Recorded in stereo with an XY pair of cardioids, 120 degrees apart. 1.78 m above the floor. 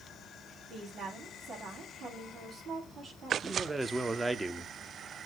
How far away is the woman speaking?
About 4.5 m.